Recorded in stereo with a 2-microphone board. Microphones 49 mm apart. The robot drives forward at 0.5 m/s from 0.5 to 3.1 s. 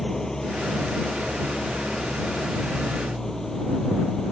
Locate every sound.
0.0 s an engine running: 10° left (ahead or behind)